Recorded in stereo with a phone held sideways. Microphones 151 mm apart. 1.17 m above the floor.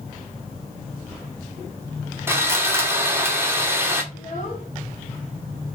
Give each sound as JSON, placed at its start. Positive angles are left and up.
{"t": 2.3, "sound": "sawing", "side_deg": -15, "distance_m": 2.0}
{"t": 4.1, "sound": "a child speaking", "side_deg": 55, "distance_m": 2.0}